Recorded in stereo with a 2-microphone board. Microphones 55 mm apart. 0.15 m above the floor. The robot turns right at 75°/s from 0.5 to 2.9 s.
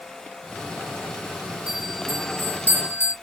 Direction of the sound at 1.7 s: 25° right.